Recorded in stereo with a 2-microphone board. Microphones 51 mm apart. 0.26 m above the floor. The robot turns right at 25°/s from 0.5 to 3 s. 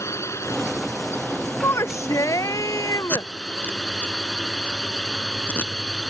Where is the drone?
105° left; by 6.1 s 165° left.